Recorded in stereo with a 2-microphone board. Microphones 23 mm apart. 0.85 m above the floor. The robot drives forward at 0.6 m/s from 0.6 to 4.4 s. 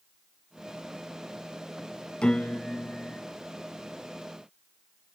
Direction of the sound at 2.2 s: 50° left (ahead or behind).